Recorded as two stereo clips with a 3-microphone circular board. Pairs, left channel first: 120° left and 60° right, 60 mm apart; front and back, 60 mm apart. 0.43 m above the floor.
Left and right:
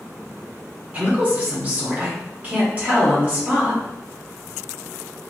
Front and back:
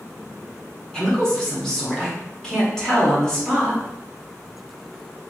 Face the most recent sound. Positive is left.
turn(degrees=-65)